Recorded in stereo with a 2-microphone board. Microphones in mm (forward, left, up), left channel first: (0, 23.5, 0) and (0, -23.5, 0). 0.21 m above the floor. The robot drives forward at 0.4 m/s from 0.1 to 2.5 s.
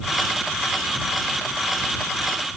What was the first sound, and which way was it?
Only background noise.